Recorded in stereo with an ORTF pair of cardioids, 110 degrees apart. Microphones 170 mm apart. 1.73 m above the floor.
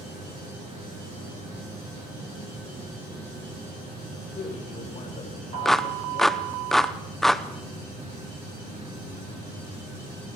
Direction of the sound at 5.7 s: 5° left.